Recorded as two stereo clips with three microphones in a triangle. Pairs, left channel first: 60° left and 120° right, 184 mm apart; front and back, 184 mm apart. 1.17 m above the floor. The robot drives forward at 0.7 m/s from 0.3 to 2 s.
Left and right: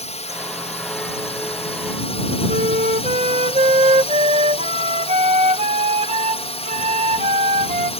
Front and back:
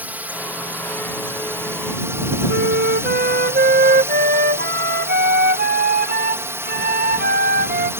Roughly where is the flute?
Behind.